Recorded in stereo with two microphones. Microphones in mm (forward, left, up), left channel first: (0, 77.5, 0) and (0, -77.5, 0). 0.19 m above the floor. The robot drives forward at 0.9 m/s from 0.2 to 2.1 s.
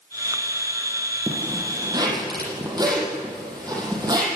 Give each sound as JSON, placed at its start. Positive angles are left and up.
{"t": 1.3, "sound": "a zipper", "side_deg": -30, "distance_m": 5.5}